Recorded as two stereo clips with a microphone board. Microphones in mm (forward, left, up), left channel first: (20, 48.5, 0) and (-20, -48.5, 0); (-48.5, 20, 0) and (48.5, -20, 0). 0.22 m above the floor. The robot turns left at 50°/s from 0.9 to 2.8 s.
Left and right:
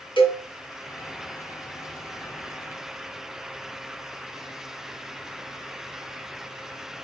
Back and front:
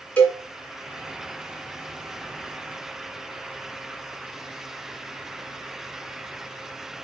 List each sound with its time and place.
0.2 s a cowbell: 80° left, 2.5 m